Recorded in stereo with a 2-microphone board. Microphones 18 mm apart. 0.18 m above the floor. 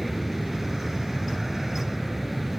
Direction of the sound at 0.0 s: 5° right (ahead or behind).